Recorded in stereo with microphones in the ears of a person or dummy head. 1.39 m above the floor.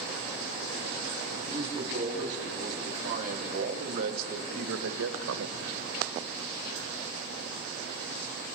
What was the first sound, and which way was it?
A man speaking, 35° right (ahead or behind).